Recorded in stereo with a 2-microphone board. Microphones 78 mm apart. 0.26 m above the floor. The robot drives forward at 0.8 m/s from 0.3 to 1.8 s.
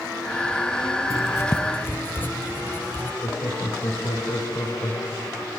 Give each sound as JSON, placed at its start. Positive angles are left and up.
{"t": 1.1, "sound": "writing", "side_deg": 40, "distance_m": 1.0}
{"t": 3.2, "sound": "laughter", "side_deg": 65, "distance_m": 3.5}